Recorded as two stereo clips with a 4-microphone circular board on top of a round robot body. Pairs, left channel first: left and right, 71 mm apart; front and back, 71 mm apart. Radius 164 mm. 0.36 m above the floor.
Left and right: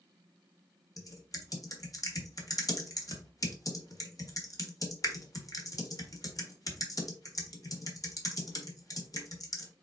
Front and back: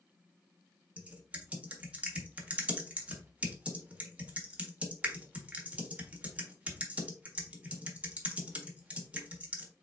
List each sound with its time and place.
1.0 s typing on a keyboard: 110° left, 1.5 m